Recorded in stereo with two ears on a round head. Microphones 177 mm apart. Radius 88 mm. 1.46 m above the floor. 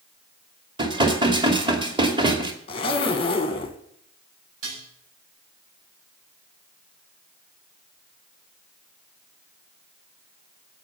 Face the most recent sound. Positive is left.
turn(degrees=-80)